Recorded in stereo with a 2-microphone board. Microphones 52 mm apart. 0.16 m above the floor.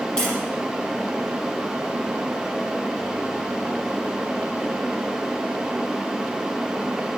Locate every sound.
0.2 s tapping: 15° left (ahead or behind), 6.5 m